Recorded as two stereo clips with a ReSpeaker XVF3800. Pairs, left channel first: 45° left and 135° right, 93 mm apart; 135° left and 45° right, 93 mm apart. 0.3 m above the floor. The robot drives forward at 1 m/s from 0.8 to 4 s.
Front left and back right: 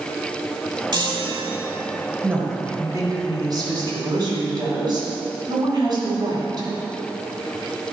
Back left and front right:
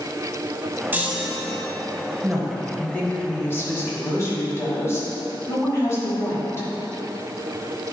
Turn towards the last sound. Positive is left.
turn(degrees=-170)